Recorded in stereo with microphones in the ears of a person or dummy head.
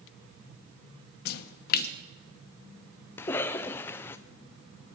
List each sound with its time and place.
1.2 s a splash: 55° left (ahead or behind), 1.0 m
3.2 s a cough: 15° left (ahead or behind), 0.7 m